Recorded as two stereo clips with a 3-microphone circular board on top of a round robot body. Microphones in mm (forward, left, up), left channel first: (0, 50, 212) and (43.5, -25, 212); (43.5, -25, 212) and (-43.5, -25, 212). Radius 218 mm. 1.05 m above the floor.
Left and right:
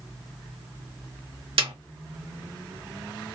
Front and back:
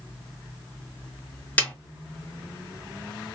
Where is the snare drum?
75° right, 0.9 m.